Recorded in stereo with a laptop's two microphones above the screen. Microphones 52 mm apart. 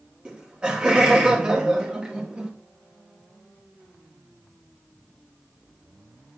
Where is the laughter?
20° right (ahead or behind), 1.2 m.